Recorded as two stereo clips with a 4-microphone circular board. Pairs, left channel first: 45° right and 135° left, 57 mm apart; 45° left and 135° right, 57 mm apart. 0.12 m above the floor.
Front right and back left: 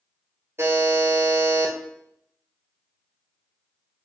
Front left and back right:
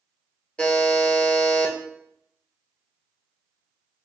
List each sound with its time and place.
0.6 s a buzzer: 110° left, 0.8 m